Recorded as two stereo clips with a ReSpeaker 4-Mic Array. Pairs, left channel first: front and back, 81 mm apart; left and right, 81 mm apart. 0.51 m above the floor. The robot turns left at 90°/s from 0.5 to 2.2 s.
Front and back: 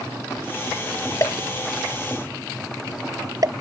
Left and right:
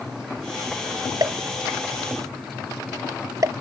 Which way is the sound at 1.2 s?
45° right.